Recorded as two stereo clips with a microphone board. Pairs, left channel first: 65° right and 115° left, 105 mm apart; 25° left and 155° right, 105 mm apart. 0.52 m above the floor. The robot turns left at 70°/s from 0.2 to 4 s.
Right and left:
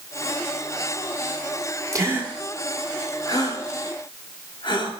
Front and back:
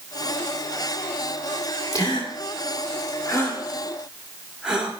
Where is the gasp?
65° left, 1.6 m; by 4.9 s 80° right, 1.6 m.